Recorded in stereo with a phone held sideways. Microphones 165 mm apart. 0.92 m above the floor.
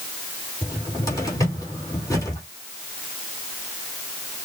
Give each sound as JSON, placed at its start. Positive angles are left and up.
{"t": 0.6, "sound": "a cupboard door", "side_deg": 20, "distance_m": 3.0}